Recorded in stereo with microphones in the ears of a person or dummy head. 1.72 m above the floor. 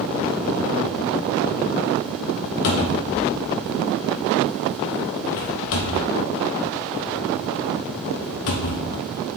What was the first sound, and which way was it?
A cupboard door, 65° left (ahead or behind).